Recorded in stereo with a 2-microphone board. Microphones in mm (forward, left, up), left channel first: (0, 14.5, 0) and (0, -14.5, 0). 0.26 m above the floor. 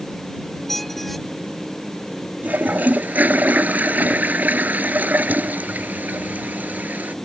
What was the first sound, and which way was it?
A squeak, 5° left (ahead or behind).